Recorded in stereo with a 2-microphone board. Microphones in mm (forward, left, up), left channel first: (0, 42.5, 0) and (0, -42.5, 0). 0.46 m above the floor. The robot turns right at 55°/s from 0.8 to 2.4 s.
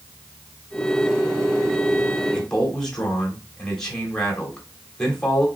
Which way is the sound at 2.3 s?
10° left (ahead or behind).